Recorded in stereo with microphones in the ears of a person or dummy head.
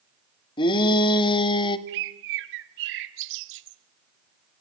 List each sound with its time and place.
0.6 s a shout: 25° left (ahead or behind), 2.0 m
1.9 s a bird: 65° right (ahead or behind), 1.4 m